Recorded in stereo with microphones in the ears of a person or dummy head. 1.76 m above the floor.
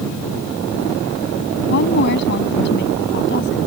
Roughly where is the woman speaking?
Left.